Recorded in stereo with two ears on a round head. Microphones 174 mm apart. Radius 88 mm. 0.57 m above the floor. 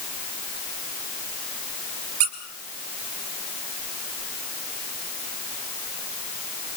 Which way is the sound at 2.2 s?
80° right.